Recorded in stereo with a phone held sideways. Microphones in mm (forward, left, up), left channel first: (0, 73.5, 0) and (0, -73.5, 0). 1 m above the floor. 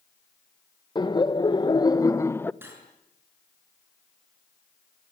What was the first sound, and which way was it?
Laughter, 30° left (ahead or behind).